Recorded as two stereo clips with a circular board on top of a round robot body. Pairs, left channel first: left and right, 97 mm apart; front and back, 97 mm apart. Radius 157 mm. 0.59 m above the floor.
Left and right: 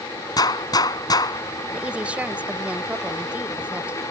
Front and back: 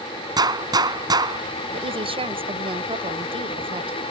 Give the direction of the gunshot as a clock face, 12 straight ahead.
7 o'clock.